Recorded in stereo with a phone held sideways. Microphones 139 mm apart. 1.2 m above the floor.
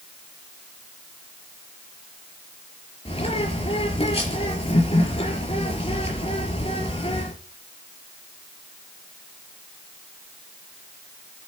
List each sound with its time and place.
3.0 s a bird: 45° left (ahead or behind), 4.5 m